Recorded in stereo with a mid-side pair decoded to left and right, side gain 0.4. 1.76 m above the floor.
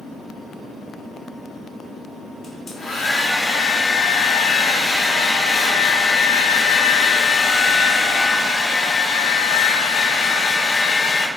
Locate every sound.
2.4 s a hair dryer: 50° left, 0.6 m